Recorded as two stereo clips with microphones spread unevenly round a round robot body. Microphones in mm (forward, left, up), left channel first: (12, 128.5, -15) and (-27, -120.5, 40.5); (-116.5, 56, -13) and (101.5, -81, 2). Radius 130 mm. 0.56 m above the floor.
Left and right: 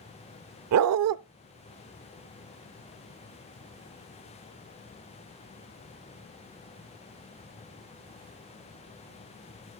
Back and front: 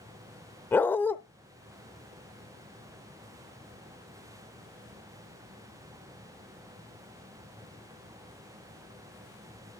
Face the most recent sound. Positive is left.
turn(degrees=-130)